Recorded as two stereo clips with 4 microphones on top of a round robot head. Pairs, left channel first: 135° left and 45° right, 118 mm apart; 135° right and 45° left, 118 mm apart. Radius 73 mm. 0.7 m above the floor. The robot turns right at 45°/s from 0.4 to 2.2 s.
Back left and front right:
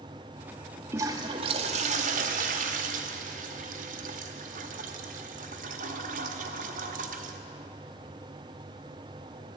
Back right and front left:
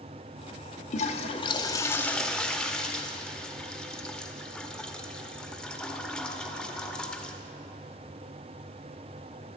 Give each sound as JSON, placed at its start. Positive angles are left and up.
{"t": 0.9, "sound": "a toilet flushing", "azimuth_deg": -110, "distance_m": 0.9}